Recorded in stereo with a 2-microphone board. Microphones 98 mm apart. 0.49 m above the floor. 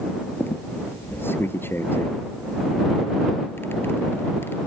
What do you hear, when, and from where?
0.4 s a squeak: 25° left (ahead or behind)